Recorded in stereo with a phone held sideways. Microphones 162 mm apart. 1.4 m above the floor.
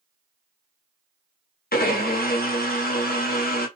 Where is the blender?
65° left (ahead or behind), 0.8 m.